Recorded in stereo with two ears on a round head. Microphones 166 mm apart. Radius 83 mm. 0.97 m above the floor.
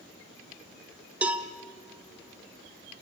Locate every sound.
1.2 s a cowbell: 5° right (ahead or behind), 1.1 m